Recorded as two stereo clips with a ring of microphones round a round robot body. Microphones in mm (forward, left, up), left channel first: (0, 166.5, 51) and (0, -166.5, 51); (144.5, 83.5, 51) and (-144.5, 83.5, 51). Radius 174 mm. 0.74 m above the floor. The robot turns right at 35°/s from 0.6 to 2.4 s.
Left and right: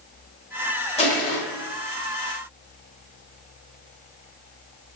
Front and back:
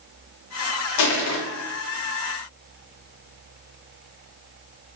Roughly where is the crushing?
Ahead.